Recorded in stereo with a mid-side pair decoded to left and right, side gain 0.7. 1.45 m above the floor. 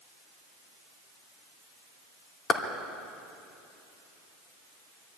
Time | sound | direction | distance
2.5 | a clap | 35° left | 2.5 m